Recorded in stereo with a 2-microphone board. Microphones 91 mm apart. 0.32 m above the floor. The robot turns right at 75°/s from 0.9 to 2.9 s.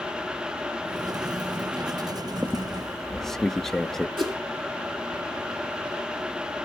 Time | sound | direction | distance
2.4 | a squeak | 35° right | 0.5 m
4.2 | a whoosh | 60° right (ahead or behind) | 4 m